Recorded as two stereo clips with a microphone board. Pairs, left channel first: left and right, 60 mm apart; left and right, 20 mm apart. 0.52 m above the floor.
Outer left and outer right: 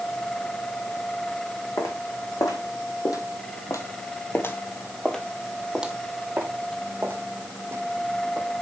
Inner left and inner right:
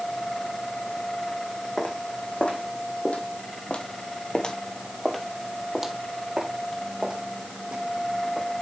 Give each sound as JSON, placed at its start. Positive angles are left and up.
{"t": 1.8, "sound": "footsteps", "side_deg": 75, "distance_m": 2.0}